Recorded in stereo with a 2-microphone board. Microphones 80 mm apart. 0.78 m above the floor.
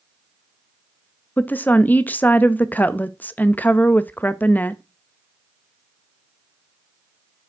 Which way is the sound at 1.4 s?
20° left (ahead or behind).